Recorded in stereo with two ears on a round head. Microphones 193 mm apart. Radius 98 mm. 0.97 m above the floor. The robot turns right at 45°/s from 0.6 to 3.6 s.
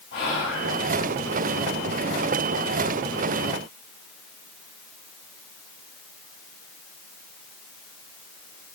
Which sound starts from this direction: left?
Whispering, at 0.1 s.